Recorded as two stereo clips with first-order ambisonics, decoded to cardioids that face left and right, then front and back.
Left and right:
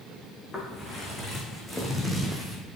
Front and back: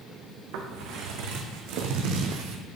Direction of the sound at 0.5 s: 170° left.